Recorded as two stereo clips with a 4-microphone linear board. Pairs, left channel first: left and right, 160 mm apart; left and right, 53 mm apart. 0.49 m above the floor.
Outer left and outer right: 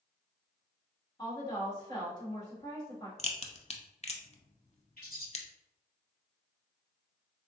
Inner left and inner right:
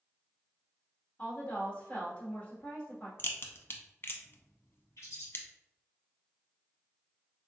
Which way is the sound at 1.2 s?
25° left (ahead or behind).